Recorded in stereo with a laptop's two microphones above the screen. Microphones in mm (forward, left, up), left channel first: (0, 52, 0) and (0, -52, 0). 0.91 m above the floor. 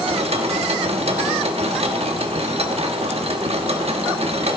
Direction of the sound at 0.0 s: 75° right (ahead or behind).